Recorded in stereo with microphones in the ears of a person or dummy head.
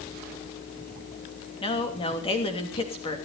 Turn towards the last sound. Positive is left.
turn(degrees=30)  # may be behind; listen again after turning